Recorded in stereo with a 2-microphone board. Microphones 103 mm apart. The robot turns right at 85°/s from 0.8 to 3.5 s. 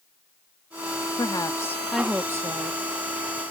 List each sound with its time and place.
1.2 s a woman speaking: 110° left; by 2.8 s 110° right